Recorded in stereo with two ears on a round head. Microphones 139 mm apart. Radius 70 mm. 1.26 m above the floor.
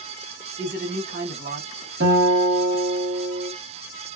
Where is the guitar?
65° right (ahead or behind), 1.4 m.